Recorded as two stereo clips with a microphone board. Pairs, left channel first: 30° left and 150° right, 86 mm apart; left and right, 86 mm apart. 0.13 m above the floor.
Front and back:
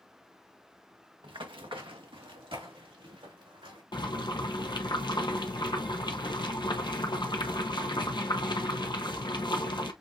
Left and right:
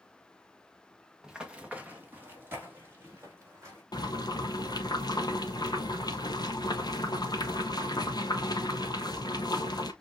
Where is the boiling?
55° left, 0.8 m.